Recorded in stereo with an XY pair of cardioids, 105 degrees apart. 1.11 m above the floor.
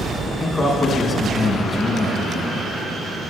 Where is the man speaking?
25° left, 1.3 m.